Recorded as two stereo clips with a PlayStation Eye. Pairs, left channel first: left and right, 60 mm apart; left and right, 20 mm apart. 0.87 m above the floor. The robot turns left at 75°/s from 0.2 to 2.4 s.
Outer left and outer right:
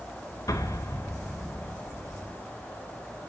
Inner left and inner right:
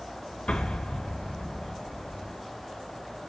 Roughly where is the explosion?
Left.